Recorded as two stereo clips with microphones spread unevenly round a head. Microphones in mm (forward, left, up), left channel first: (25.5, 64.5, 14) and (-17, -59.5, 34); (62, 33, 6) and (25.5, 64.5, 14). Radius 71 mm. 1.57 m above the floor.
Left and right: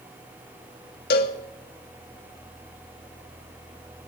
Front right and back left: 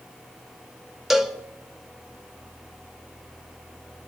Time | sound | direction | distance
1.1 | a cowbell | 65° left | 1.3 m